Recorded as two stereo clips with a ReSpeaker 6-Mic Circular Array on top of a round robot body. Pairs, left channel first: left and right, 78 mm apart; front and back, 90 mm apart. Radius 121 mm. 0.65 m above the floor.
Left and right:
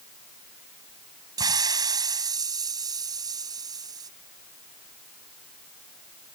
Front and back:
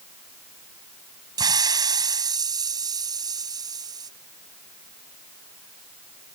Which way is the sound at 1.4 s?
130° right.